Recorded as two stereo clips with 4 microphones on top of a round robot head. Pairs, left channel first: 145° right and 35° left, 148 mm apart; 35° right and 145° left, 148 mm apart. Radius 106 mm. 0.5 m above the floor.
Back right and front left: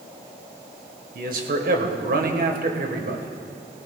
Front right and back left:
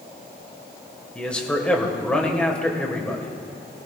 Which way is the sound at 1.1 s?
50° left.